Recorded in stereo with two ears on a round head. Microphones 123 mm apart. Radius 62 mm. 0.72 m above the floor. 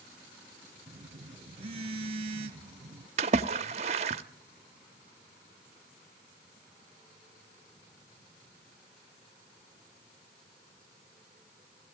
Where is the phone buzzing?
45° right (ahead or behind), 1.7 m.